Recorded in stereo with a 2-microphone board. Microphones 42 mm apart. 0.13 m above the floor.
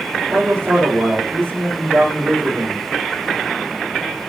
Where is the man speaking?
55° right (ahead or behind), 6.5 m.